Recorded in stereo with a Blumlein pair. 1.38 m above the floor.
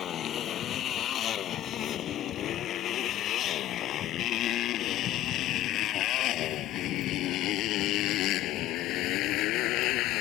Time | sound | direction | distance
0.0 | a motorcycle | 25° left | ?